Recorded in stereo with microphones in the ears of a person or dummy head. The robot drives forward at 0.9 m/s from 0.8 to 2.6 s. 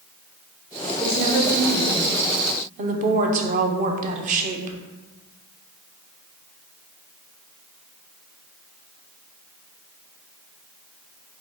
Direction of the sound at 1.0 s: 10° right (ahead or behind).